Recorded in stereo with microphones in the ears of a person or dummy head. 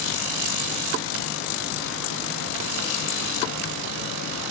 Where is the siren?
No siren in this recording.